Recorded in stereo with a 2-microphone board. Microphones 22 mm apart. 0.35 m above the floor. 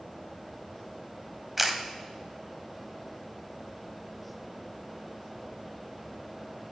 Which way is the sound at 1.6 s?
10° right (ahead or behind).